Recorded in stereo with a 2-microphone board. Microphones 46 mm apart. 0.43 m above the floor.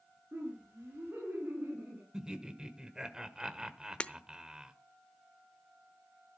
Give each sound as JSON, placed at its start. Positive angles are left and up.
{"t": 0.3, "sound": "laughter", "side_deg": -60, "distance_m": 6.0}
{"t": 2.1, "sound": "laughter", "side_deg": -15, "distance_m": 1.4}
{"t": 4.0, "sound": "breaking glass", "side_deg": 25, "distance_m": 0.7}